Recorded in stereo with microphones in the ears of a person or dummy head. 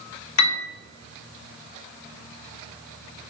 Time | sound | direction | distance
0.4 | a piano | 80° left | 0.6 m